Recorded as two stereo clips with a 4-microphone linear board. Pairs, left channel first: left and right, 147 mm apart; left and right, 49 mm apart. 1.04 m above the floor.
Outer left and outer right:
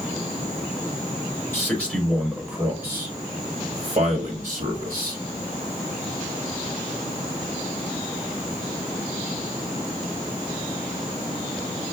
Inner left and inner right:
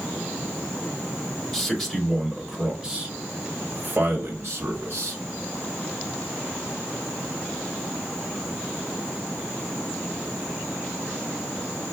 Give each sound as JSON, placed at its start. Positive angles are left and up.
{"t": 1.5, "sound": "a man speaking", "side_deg": 15, "distance_m": 1.4}